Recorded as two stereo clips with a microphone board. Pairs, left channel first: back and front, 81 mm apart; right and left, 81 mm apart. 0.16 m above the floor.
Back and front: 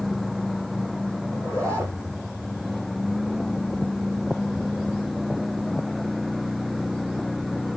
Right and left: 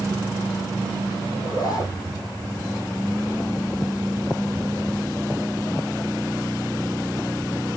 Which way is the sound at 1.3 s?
50° right.